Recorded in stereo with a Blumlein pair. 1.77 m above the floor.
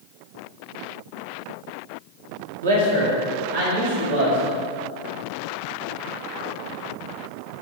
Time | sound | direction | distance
2.6 | a man speaking | 65° right | 1.0 m